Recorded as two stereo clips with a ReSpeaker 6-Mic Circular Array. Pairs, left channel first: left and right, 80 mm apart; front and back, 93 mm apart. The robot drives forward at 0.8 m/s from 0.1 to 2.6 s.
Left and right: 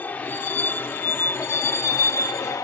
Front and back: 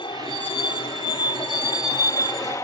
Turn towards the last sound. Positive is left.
turn(degrees=50)